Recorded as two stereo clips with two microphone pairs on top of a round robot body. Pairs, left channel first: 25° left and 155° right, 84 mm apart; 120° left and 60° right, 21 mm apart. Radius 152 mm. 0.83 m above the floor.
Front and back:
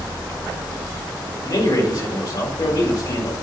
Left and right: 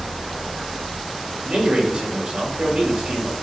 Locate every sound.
1.4 s a man speaking: 15° right, 3.5 m